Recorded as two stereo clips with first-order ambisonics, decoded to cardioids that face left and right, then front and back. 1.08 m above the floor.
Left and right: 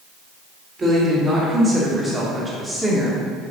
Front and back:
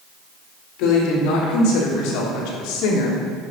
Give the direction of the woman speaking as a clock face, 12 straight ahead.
1 o'clock.